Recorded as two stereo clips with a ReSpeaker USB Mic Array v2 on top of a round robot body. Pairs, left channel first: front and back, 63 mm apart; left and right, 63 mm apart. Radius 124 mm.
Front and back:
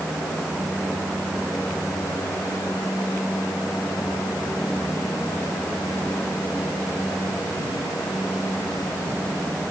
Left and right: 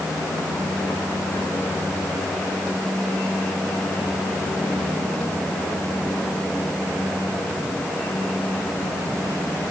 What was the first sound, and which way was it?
Only background noise.